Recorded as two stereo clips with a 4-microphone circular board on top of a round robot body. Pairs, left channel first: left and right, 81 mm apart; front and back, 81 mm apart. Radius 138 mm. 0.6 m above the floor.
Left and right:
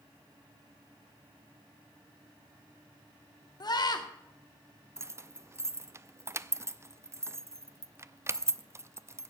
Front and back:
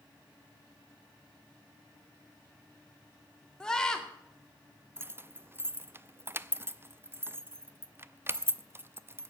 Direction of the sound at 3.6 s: 80° left.